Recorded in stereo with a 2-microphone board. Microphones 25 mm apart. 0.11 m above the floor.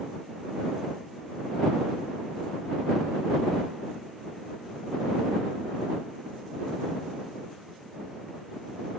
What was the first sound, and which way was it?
Only background noise.